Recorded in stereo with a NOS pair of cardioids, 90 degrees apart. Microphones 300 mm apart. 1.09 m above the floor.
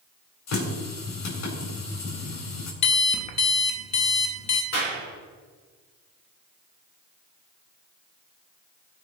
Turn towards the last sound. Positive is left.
turn(degrees=55)